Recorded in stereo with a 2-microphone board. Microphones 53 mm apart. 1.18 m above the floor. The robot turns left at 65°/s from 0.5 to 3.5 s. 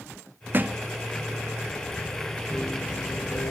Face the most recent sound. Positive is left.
turn(degrees=105)